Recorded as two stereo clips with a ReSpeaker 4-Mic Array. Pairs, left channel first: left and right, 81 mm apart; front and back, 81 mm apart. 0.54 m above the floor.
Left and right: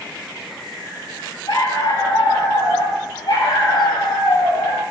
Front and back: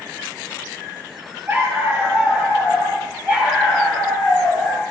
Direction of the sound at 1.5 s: 115° left.